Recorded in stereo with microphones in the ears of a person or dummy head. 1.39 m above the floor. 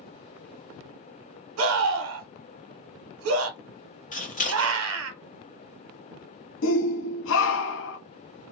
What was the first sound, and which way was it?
A scream, 70° right (ahead or behind).